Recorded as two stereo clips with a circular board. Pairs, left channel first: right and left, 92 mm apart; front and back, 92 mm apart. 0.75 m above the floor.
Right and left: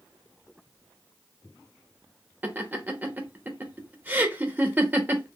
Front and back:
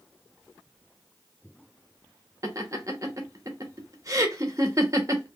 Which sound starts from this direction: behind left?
Laughter, at 2.4 s.